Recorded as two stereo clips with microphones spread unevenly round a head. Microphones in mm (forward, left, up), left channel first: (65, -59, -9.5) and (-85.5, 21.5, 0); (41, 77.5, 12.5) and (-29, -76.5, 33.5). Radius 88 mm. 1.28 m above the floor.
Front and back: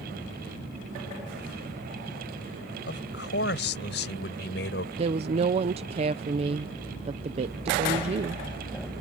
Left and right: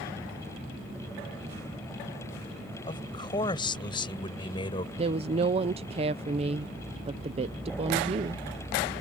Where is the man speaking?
Straight ahead; by 4.9 s 5° left.